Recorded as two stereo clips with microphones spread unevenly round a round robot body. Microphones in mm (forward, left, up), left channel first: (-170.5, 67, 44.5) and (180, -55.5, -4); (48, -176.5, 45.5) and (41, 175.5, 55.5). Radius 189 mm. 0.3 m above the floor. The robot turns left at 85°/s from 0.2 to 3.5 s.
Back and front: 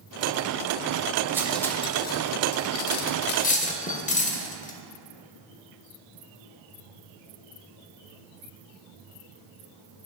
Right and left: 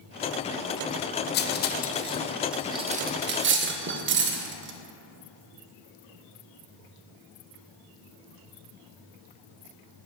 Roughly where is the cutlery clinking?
Right.